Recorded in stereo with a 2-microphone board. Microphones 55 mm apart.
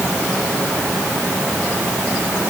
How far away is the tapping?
I don't hear tapping.